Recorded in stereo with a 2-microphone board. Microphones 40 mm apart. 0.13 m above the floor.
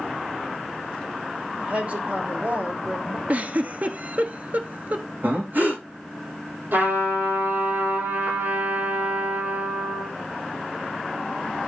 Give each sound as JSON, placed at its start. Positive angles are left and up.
{"t": 1.6, "sound": "a woman speaking", "side_deg": -35, "distance_m": 5.5}
{"t": 3.3, "sound": "a giggle", "side_deg": -45, "distance_m": 0.8}
{"t": 5.2, "sound": "breathing", "side_deg": -55, "distance_m": 5.0}
{"t": 6.7, "sound": "a trumpet", "side_deg": -60, "distance_m": 4.5}